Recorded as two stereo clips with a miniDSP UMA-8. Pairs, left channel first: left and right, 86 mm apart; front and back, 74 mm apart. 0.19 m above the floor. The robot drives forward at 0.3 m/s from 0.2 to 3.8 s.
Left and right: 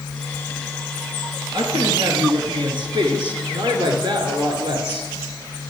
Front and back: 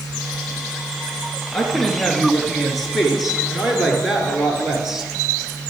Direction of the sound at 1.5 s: 80° right.